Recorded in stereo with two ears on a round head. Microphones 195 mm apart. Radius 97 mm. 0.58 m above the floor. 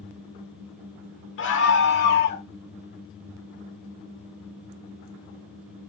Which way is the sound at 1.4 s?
60° left (ahead or behind).